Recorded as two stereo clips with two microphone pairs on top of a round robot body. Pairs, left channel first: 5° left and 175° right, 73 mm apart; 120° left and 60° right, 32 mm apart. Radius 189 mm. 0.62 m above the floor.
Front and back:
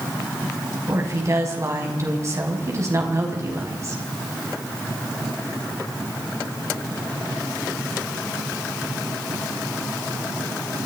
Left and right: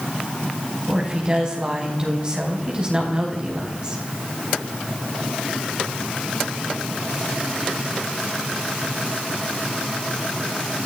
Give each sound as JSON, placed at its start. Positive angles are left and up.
{"t": 0.9, "sound": "a woman speaking", "azimuth_deg": -125, "distance_m": 5.5}